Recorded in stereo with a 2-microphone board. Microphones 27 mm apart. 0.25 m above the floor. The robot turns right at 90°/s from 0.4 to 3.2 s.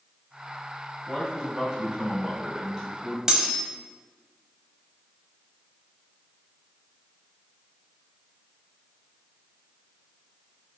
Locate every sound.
1.1 s a man speaking: centre (ahead or behind), 1.6 m; by 3.2 s 5° left (ahead or behind), 1.6 m
3.3 s cutlery clinking: 20° right (ahead or behind), 0.6 m